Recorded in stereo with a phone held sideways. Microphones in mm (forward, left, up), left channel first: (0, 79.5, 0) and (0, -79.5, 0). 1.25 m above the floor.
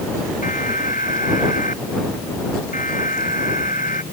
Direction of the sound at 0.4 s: 55° left (ahead or behind).